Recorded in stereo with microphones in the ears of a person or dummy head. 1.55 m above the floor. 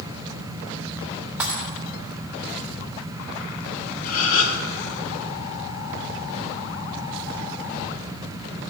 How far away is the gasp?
About 1.0 m.